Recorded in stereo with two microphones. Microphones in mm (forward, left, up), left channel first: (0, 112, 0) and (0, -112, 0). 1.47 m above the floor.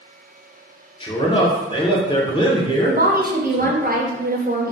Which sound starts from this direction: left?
A man speaking, at 1.0 s.